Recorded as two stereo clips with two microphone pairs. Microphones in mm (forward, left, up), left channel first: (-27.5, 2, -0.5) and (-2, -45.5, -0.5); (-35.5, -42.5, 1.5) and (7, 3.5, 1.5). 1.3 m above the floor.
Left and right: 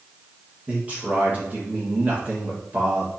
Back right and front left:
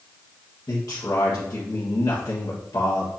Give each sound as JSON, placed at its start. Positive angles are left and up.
{"t": 0.7, "sound": "a man speaking", "azimuth_deg": -125, "distance_m": 1.7}